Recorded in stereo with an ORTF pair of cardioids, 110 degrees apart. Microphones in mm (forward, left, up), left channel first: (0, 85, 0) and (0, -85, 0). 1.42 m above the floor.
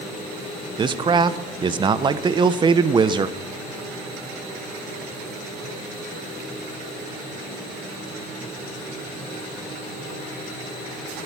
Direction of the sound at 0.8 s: 25° right.